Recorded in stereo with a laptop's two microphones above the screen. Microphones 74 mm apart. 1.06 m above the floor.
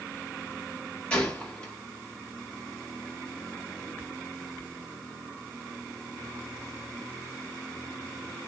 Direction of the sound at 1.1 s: 15° left (ahead or behind).